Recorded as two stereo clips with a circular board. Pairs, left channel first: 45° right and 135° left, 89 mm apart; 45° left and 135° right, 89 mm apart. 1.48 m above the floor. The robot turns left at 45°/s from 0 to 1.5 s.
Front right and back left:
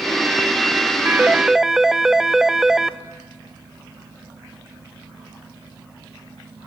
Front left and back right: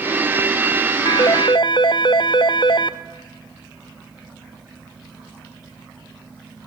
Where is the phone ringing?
70° left, 0.7 m; by 6.7 s 50° left, 0.7 m.